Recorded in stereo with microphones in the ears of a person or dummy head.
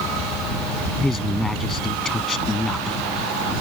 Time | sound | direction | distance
1.0 | a man speaking | 5° left (ahead or behind) | ?